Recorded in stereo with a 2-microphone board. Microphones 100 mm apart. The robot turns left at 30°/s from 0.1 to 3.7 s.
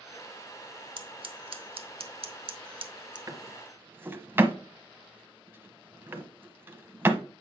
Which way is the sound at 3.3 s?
35° right (ahead or behind).